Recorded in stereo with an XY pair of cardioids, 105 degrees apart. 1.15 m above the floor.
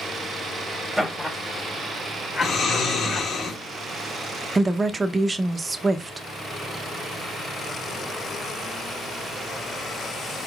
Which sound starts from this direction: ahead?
Laughter, at 1.0 s.